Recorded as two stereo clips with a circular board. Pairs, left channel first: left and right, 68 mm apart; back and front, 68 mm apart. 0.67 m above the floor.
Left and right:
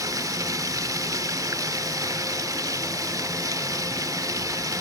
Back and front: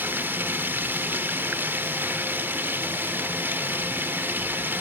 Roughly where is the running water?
Ahead right.